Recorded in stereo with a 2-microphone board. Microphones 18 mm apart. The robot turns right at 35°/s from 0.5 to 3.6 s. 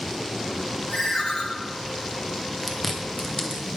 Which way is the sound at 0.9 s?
10° left (ahead or behind).